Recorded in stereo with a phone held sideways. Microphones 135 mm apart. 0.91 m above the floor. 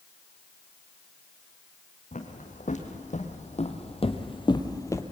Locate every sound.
2.1 s footsteps: 70° left (ahead or behind), 3.5 m; by 5.0 s 20° left (ahead or behind), 1.7 m